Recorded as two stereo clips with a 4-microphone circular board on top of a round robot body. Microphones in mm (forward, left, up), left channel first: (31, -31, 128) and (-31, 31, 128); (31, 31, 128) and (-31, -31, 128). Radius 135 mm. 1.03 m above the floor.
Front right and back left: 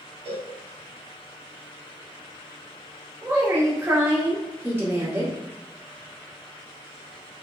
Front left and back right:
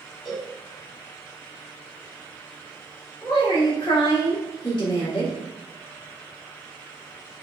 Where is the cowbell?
135° left, 1.7 m.